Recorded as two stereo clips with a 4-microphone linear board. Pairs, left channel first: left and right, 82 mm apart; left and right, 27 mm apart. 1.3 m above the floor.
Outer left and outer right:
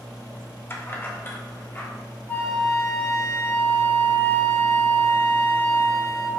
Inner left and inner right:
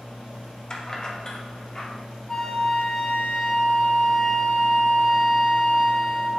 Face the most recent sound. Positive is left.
turn(degrees=25)  # may be behind; listen again after turning